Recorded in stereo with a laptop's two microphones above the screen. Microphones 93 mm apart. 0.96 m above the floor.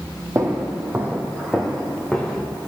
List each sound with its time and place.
0.3 s footsteps: 35° right (ahead or behind), 1.9 m; by 2.5 s 5° left (ahead or behind), 3 m